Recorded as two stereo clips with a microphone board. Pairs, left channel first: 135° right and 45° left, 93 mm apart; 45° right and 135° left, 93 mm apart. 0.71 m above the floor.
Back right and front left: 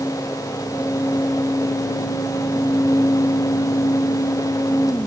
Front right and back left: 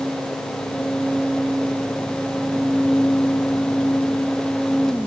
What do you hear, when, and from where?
Only background noise.